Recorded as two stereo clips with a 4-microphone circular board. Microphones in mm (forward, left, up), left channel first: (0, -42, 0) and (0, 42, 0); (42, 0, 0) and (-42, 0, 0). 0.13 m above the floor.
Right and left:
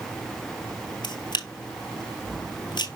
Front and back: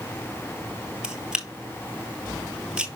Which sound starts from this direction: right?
A camera shutter, at 1.0 s.